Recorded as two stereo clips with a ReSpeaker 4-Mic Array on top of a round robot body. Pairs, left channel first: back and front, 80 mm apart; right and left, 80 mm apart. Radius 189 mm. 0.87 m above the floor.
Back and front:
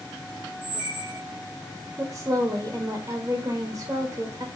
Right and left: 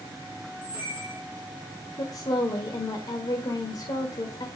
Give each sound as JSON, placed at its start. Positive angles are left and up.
{"t": 0.6, "sound": "a squeak", "azimuth_deg": -125, "distance_m": 3.0}
{"t": 2.0, "sound": "a woman speaking", "azimuth_deg": -60, "distance_m": 1.5}